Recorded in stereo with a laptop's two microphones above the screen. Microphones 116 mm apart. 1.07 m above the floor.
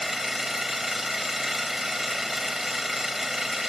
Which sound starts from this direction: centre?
An engine running, at 0.0 s.